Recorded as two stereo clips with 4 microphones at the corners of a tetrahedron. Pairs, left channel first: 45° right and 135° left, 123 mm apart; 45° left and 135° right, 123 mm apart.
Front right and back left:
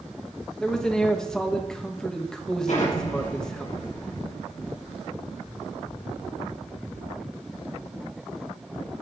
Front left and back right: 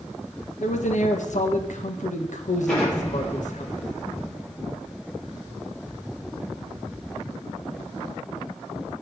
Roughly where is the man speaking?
Ahead left.